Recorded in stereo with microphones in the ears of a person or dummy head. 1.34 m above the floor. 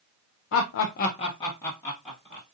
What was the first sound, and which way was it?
Laughter, 60° left (ahead or behind).